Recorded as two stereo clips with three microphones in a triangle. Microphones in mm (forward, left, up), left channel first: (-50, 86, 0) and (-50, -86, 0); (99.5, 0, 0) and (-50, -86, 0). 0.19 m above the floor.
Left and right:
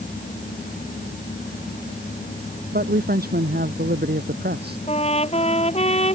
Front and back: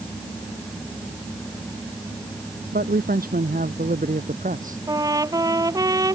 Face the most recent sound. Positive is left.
turn(degrees=140)